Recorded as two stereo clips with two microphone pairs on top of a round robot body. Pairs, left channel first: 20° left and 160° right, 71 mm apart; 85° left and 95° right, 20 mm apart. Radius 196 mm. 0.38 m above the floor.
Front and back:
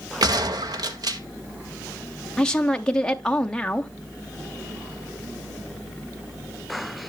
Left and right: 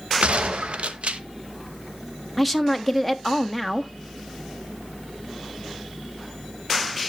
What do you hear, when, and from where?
0.2 s a gunshot: 130° right, 0.7 m
2.4 s a woman speaking: 35° right, 0.8 m